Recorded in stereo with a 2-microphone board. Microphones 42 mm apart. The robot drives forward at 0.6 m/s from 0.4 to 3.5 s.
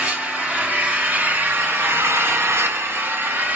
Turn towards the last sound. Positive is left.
turn(degrees=-50)  # may be behind; listen again after turning